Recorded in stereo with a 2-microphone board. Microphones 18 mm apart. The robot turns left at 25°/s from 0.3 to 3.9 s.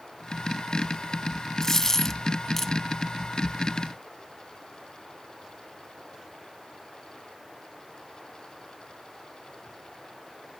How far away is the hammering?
No hammering in this recording.